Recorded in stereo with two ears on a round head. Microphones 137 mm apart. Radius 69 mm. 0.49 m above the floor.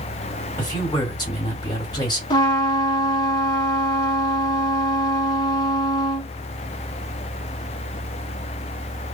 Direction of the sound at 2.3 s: 30° left (ahead or behind).